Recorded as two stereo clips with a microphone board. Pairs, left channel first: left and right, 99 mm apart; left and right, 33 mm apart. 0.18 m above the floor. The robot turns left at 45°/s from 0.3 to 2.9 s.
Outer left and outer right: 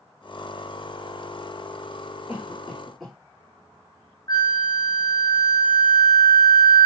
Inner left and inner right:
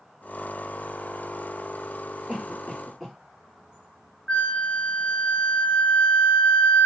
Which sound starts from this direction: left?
A flute, at 4.3 s.